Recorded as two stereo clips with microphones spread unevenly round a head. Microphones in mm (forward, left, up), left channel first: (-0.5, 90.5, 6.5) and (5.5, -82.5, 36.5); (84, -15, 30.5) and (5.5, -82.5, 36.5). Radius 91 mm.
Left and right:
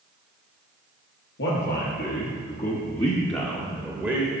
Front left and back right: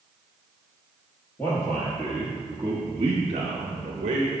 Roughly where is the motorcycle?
No motorcycle in this recording.